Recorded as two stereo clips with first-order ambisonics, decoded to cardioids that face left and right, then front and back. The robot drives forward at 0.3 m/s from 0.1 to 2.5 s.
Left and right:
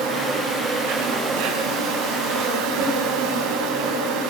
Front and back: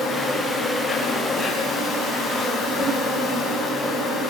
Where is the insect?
80° right, 9.5 m; by 4.3 s 85° right, 9.5 m.